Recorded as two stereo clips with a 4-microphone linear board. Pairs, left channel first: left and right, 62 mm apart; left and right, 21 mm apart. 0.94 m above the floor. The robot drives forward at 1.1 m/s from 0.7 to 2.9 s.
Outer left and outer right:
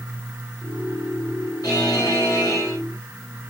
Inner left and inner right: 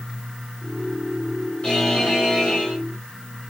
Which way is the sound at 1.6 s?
90° left.